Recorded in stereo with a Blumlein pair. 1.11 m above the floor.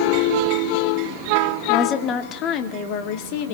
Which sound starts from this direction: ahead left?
A woman speaking, at 1.7 s.